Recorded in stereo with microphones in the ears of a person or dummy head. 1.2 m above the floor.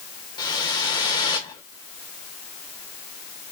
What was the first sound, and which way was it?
A whoosh, 20° left (ahead or behind).